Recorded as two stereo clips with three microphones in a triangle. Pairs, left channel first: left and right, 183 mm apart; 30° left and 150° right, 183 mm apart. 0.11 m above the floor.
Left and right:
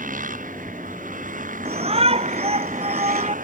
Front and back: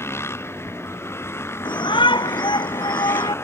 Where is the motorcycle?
45° right.